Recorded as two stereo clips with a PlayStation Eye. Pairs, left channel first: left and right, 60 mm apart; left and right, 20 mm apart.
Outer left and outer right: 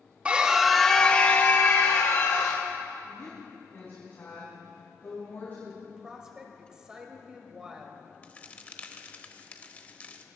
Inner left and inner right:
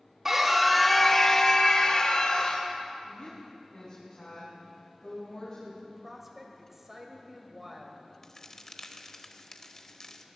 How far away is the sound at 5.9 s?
About 2 m.